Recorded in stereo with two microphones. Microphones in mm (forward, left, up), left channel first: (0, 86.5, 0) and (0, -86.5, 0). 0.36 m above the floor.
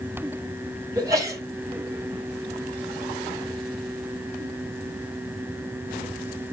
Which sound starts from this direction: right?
A sneeze, at 0.9 s.